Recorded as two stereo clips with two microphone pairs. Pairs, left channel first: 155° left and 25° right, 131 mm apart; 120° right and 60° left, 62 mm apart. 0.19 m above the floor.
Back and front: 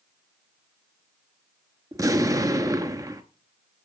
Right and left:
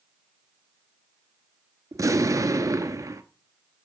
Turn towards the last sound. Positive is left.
turn(degrees=35)